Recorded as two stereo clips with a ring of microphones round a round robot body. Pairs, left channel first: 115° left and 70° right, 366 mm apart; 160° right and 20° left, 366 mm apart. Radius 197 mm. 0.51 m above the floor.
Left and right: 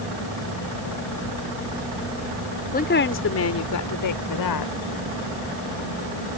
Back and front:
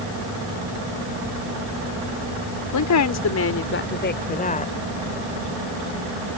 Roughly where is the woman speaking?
Behind.